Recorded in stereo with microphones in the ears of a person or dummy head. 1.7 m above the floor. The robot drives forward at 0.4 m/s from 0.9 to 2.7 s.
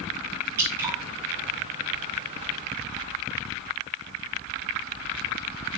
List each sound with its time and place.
0.6 s dripping: 20° right (ahead or behind), 2 m